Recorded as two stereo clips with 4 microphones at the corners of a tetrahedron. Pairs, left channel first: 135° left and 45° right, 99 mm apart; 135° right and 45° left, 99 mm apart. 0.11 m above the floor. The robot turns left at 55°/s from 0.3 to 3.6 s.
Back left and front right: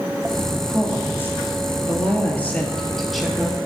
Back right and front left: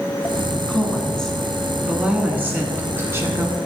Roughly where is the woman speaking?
Behind.